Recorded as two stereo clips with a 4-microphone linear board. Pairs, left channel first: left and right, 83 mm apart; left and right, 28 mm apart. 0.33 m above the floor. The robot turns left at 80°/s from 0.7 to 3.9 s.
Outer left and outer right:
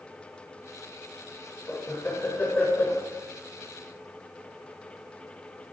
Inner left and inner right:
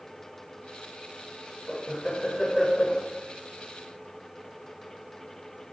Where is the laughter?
20° left (ahead or behind), 1.2 m; by 3.0 s 10° left (ahead or behind), 1.2 m.